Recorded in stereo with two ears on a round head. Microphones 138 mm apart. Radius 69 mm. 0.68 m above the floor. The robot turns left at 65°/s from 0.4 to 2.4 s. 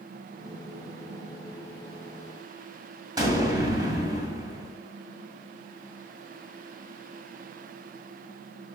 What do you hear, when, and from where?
3.2 s an explosion: 25° right (ahead or behind), 2 m